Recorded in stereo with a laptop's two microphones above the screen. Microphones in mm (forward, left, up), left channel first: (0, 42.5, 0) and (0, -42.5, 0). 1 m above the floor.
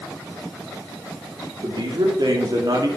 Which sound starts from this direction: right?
A man speaking, at 1.6 s.